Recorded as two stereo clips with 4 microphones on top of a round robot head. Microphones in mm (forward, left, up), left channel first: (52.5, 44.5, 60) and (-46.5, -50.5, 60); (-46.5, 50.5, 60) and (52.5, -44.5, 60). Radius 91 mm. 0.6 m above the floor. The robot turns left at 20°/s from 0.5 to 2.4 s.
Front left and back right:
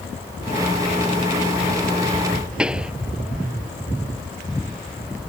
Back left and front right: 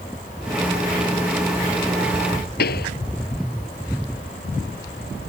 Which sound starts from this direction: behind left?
A pop, at 2.6 s.